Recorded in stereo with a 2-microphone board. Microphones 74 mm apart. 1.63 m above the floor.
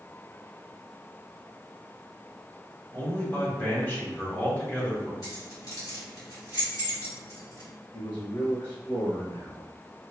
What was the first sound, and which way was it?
A man speaking, 30° left (ahead or behind).